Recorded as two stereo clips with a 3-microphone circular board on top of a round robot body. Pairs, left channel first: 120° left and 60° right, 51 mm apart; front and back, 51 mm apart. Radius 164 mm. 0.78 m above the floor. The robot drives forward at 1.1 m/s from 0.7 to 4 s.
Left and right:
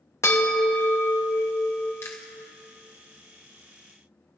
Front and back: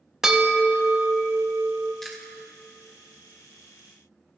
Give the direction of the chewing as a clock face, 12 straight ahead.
9 o'clock.